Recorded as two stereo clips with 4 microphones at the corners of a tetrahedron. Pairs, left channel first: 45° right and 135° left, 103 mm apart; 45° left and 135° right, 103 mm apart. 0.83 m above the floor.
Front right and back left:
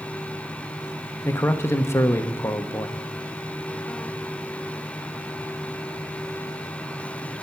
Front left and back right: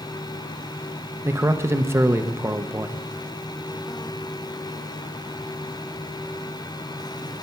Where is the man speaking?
85° right, 0.8 m.